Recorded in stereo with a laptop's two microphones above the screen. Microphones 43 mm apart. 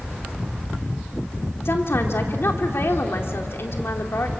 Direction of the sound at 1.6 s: 65° left (ahead or behind).